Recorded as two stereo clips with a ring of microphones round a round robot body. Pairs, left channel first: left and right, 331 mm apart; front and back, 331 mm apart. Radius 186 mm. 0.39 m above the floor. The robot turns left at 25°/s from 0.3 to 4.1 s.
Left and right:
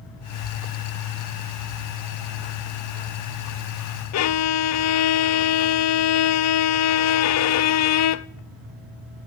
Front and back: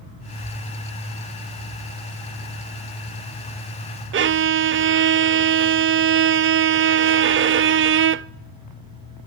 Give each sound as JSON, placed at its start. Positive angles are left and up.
{"t": 4.1, "sound": "a violin", "azimuth_deg": 125, "distance_m": 0.6}